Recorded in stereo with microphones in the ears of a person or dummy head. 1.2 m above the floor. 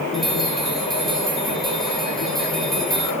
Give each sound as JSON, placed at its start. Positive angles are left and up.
{"t": 0.1, "sound": "a bell", "side_deg": 0, "distance_m": 3.5}